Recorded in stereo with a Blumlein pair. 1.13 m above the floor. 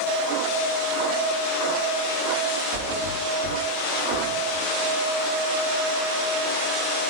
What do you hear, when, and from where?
2.7 s a thud: 55° right, 2.5 m